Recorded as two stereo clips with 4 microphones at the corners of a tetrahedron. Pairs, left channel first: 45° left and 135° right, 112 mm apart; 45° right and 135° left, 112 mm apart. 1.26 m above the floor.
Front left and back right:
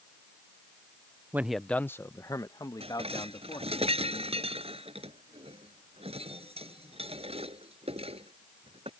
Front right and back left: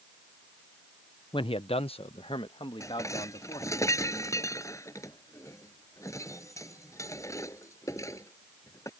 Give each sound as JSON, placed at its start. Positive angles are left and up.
{"t": 1.3, "sound": "a man speaking", "azimuth_deg": -65}
{"t": 2.8, "sound": "dishes clattering", "azimuth_deg": -105}